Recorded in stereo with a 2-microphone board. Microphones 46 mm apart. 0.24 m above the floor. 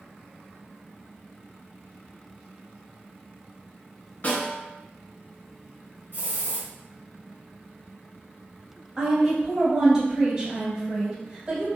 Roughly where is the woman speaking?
Centre.